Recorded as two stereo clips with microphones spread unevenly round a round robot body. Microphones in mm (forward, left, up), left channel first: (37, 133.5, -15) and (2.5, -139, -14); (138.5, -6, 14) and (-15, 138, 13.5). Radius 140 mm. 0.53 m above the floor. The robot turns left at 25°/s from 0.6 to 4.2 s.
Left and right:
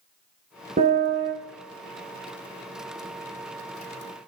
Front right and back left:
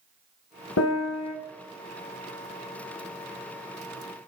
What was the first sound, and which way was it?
A piano, 35° right.